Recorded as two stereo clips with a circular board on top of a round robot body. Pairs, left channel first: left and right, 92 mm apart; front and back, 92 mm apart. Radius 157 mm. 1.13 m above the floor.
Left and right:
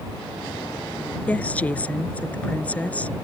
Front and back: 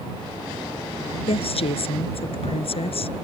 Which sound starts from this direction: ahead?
A woman speaking, at 1.3 s.